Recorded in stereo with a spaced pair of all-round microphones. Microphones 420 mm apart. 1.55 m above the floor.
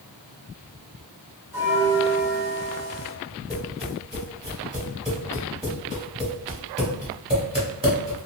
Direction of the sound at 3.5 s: 15° right (ahead or behind).